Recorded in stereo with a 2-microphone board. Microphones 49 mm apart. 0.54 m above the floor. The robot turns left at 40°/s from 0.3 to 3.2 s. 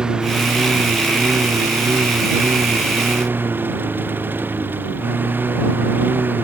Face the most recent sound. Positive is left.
turn(degrees=-45)  # may be behind; listen again after turning